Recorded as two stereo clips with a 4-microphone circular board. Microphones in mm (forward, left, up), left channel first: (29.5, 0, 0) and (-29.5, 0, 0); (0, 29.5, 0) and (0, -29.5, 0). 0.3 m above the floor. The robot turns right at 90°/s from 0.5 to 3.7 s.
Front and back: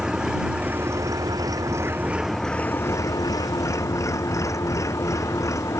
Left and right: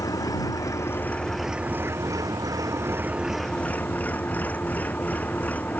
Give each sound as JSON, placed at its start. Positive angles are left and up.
{"t": 0.0, "sound": "an engine running", "azimuth_deg": 100}